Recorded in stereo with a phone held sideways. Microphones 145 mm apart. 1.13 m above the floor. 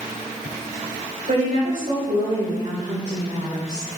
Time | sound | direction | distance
1.3 | a woman speaking | 70° right (ahead or behind) | 5.5 m